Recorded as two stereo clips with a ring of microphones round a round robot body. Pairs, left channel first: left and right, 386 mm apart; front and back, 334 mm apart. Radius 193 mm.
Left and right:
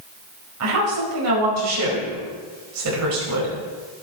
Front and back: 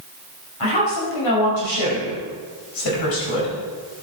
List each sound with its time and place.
0.6 s a woman speaking: 40° right, 4.5 m